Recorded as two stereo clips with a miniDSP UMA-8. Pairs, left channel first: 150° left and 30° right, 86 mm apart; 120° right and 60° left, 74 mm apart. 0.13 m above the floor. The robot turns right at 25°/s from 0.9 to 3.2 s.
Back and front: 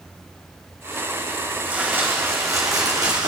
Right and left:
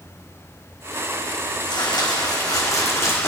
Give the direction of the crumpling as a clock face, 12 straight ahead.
4 o'clock.